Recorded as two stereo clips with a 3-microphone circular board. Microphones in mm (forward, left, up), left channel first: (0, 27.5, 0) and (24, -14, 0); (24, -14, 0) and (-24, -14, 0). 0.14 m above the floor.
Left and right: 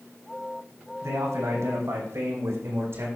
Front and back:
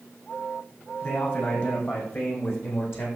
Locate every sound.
1.0 s a man speaking: 45° right, 5.5 m; by 3.1 s 30° right, 6.5 m